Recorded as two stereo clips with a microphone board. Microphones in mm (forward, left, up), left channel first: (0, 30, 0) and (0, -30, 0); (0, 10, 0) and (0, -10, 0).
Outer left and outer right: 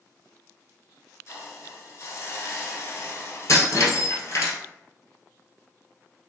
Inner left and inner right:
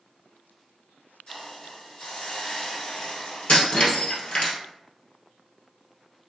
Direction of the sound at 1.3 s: 45° left (ahead or behind).